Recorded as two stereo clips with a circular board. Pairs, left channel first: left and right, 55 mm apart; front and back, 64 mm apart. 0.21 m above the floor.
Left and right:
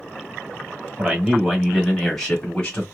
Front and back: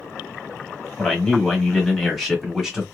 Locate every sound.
1.0 s a man speaking: 60° right, 1.7 m; by 2.8 s 95° left, 1.7 m